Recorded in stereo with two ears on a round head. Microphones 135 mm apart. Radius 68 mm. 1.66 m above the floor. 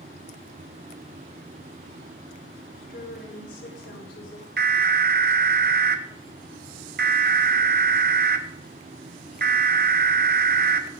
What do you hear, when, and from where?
2.8 s a woman speaking: 80° left, 5 m
4.6 s an alarm: 70° right (ahead or behind), 1.2 m